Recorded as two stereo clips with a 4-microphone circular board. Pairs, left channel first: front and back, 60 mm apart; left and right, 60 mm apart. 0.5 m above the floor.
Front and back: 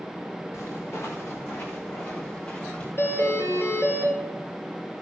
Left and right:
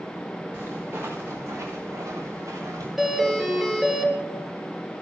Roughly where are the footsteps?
Ahead right.